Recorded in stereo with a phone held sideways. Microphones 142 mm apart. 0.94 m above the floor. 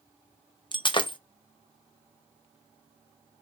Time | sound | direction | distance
0.7 | breaking glass | 35° left (ahead or behind) | 0.8 m